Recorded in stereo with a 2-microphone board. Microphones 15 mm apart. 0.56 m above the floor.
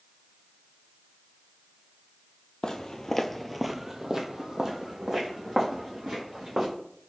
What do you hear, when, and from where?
2.6 s footsteps: 40° left (ahead or behind), 0.8 m; by 6.7 s 55° right (ahead or behind), 2.5 m